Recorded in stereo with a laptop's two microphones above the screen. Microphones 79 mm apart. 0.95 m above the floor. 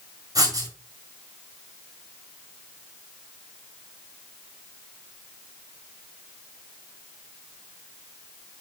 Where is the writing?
55° right (ahead or behind), 1.8 m.